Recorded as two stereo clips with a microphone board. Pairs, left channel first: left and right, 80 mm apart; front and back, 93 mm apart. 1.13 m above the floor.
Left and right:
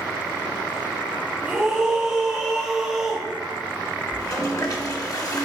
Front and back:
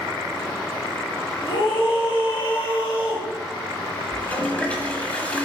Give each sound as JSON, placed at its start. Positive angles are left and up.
{"t": 1.4, "sound": "a scream", "azimuth_deg": -5, "distance_m": 2.0}
{"t": 4.1, "sound": "a toilet flushing", "azimuth_deg": 70, "distance_m": 1.4}